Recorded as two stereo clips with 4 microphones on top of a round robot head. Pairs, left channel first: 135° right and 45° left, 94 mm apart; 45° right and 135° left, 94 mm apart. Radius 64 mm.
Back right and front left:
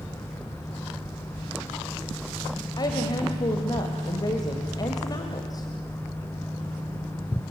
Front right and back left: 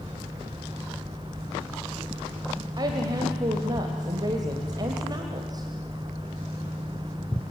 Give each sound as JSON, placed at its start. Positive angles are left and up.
{"t": 2.8, "sound": "a woman speaking", "azimuth_deg": 180, "distance_m": 1.9}